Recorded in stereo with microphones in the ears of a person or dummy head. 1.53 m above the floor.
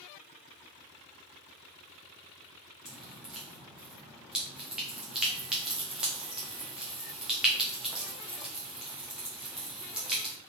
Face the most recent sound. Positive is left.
turn(degrees=-5)  # may be behind; listen again after turning